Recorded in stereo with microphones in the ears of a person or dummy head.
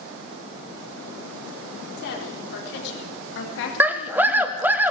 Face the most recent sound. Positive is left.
turn(degrees=-10)  # may be behind; listen again after turning